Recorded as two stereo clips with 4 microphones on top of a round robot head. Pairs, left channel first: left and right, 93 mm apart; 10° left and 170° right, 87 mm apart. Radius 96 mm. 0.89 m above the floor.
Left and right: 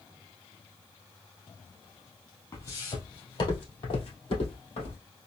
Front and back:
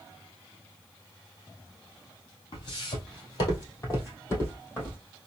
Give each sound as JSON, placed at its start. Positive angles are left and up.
{"t": 2.5, "sound": "footsteps", "azimuth_deg": 35, "distance_m": 1.9}